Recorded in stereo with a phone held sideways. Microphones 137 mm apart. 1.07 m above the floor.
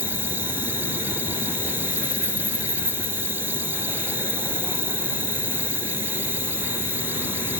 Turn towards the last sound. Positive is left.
turn(degrees=-15)  # may be behind; listen again after turning